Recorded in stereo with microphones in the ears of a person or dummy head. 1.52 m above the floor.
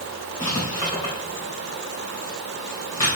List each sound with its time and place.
0.4 s writing: 15° left (ahead or behind), 2 m